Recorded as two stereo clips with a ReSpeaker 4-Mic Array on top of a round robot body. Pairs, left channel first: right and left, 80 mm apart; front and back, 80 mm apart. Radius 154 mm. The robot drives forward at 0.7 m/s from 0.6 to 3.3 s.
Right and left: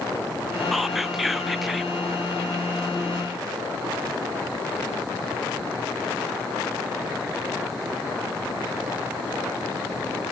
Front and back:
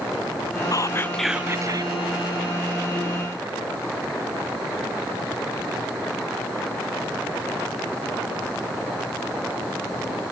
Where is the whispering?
Straight ahead, 0.6 m; by 2.0 s straight behind, 0.7 m.